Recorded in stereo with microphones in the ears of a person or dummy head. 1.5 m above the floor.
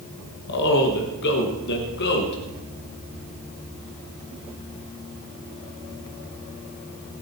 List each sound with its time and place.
0.5 s a man speaking: 60° left (ahead or behind), 1.8 m